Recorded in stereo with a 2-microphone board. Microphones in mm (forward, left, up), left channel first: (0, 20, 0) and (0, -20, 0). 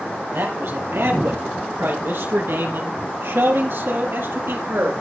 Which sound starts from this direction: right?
A man speaking, at 0.3 s.